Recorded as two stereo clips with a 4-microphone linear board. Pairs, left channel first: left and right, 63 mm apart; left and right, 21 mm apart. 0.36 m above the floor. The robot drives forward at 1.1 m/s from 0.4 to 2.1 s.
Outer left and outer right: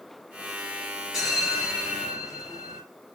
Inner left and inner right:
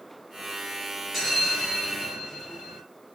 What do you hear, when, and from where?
1.1 s a bell: 5° right (ahead or behind), 1.6 m; by 2.8 s centre (ahead or behind), 2.5 m